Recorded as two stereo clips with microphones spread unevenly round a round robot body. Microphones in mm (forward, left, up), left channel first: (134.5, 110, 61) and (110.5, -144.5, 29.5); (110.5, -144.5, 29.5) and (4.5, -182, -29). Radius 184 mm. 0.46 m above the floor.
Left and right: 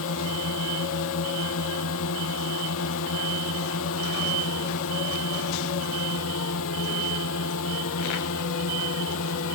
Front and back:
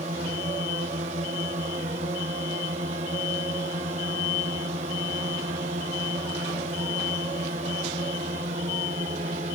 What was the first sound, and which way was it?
A drone, 140° left.